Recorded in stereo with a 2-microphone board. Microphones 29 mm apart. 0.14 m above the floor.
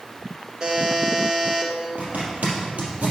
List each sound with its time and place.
0.6 s a buzzer: 25° right (ahead or behind), 1.7 m
2.0 s a zipper: 55° right (ahead or behind), 3 m